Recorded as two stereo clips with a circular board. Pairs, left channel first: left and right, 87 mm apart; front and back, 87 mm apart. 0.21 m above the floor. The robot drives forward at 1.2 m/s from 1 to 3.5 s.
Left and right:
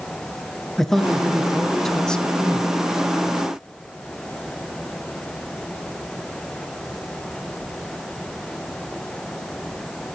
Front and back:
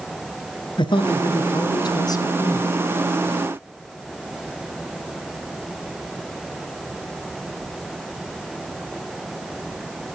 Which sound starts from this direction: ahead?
A man speaking, at 0.8 s.